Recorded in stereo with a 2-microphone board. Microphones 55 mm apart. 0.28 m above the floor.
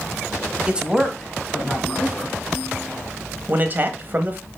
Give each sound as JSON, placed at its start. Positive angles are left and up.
{"t": 0.7, "sound": "a man speaking", "side_deg": -20, "distance_m": 1.1}
{"t": 3.5, "sound": "a man speaking", "side_deg": -35, "distance_m": 1.1}